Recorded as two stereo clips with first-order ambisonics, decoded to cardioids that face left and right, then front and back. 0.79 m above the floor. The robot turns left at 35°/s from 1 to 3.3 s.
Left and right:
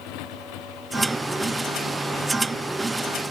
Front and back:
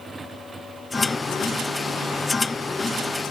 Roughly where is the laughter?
I don't hear laughter.